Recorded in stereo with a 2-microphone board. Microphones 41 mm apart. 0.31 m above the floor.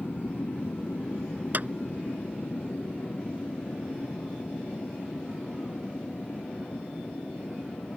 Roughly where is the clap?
Right.